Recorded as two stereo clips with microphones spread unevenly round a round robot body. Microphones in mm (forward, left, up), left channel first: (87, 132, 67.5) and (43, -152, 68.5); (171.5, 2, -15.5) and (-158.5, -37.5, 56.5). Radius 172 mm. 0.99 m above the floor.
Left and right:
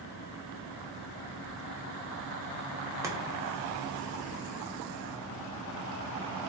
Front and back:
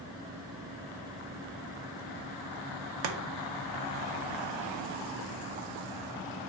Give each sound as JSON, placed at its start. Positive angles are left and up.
{"t": 3.0, "sound": "chopping", "azimuth_deg": -175, "distance_m": 0.7}